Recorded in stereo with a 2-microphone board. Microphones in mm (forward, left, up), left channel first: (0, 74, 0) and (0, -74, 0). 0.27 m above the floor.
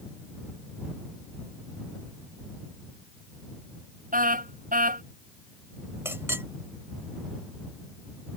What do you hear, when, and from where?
4.1 s a car horn: 65° right (ahead or behind)
6.0 s a clink: 15° right (ahead or behind)